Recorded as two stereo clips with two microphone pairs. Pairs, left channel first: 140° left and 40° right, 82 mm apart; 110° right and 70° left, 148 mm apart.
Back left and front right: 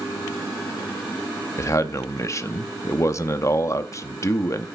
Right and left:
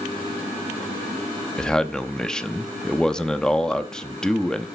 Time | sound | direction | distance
1.6 | a man speaking | 170° left | 0.8 m